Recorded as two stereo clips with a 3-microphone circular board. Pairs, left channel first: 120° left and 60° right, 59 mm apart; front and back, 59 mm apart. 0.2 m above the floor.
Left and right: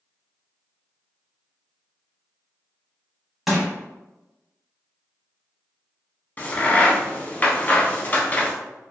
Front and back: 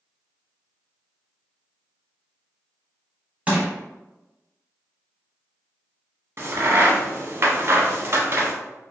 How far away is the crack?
About 0.6 m.